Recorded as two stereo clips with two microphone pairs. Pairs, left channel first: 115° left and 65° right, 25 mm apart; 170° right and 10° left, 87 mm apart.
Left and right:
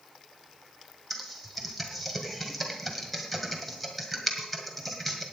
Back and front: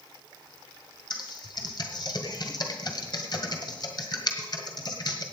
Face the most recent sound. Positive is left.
turn(degrees=-155)